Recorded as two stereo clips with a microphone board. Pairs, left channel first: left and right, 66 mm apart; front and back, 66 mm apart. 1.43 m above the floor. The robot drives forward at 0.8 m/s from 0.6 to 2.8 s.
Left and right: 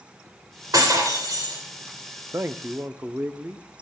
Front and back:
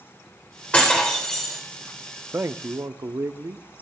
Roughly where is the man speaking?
Behind right.